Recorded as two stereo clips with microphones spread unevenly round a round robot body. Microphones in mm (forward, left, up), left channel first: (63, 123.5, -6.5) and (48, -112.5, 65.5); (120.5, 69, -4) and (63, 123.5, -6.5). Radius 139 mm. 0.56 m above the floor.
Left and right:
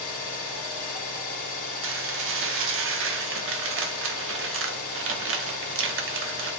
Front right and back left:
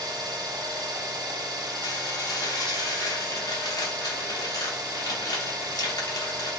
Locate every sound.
0.0 s an engine running: 110° left, 1.7 m
1.8 s dishes clattering: 60° right, 0.7 m